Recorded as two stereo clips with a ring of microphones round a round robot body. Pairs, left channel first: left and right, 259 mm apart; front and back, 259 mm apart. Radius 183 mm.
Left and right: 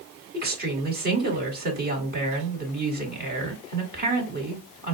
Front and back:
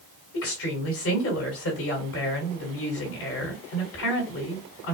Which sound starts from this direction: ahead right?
A woman speaking, at 0.3 s.